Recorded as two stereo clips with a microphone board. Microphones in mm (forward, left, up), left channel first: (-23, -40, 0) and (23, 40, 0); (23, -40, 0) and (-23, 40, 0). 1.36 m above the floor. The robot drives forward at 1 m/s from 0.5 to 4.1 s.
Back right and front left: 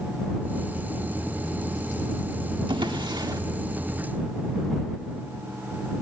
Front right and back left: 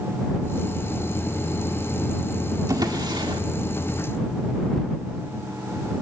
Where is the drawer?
75° left, 1.9 m; by 3.4 s 100° left, 1.9 m.